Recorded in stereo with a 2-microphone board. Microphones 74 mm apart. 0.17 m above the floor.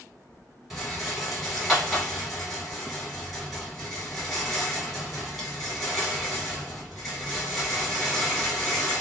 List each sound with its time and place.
0.7 s a rattle: centre (ahead or behind), 1.4 m